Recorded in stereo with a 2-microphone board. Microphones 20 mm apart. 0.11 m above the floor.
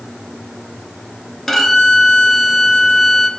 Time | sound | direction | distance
1.5 | a violin | 5° left (ahead or behind) | 1.0 m